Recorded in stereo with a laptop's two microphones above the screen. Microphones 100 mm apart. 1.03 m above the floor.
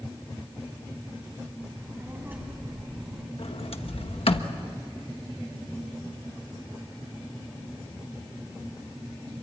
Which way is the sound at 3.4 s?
70° left (ahead or behind).